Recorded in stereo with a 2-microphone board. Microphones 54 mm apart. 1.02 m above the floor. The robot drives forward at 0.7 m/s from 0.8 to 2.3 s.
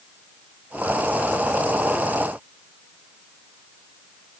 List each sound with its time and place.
Only background noise.